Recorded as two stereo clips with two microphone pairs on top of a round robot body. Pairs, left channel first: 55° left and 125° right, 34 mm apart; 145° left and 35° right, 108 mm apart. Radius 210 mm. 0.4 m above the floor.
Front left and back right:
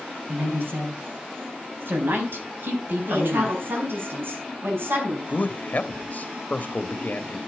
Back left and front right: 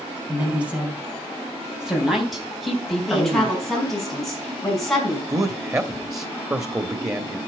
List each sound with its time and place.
0.3 s a woman speaking: 115° right, 5.5 m; by 3.6 s 135° right, 3.5 m
3.1 s a woman speaking: 130° right, 5.5 m
5.3 s a man speaking: 20° left, 1.5 m